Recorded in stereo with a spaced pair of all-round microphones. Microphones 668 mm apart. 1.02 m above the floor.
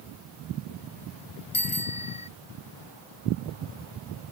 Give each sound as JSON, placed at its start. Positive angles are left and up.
{"t": 1.5, "sound": "a bicycle bell", "side_deg": 45}